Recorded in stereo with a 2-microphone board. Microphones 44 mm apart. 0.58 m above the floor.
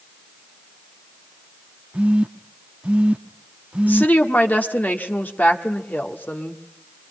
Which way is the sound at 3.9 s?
45° left (ahead or behind).